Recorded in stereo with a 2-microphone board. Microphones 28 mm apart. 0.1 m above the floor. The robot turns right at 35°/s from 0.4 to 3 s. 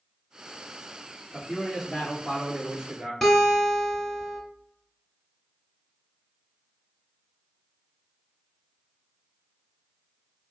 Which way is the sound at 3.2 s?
10° left (ahead or behind).